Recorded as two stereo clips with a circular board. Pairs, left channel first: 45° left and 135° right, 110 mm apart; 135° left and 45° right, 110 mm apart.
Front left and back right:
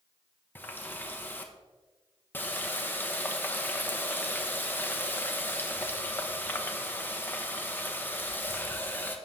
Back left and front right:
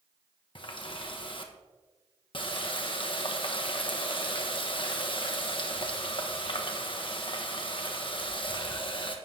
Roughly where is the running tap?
Behind left.